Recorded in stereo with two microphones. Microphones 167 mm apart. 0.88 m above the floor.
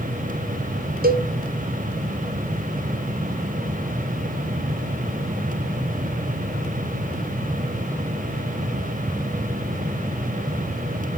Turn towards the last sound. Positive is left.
turn(degrees=-75)  # may be behind; listen again after turning